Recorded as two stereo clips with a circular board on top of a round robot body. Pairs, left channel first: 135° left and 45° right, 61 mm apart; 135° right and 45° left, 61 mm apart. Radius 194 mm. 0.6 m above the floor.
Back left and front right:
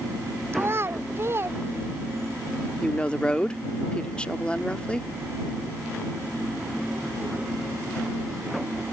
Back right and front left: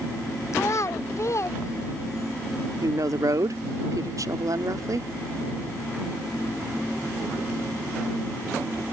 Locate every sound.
0.5 s a child speaking: 95° right
2.8 s a woman speaking: 60° left